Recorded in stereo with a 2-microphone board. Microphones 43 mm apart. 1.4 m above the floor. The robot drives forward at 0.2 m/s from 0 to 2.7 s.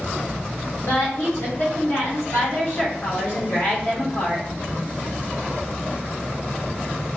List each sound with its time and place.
0.8 s a woman speaking: 75° left (ahead or behind), 1.9 m; by 4.5 s 80° left, 1.9 m